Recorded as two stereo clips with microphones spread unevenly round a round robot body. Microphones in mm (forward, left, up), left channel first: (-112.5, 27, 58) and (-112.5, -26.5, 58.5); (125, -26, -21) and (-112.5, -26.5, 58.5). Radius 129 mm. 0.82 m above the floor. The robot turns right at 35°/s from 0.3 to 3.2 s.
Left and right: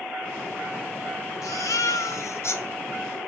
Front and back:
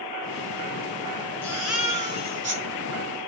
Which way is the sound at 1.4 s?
85° left.